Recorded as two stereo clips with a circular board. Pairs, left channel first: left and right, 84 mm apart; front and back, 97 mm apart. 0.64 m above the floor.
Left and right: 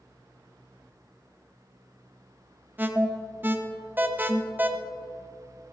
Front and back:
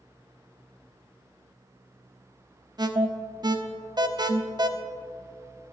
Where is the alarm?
150° right, 0.7 m.